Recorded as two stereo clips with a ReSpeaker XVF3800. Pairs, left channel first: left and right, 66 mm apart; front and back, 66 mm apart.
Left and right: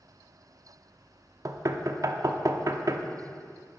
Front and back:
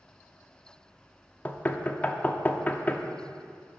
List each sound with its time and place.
1.4 s knocking: 65° right, 0.6 m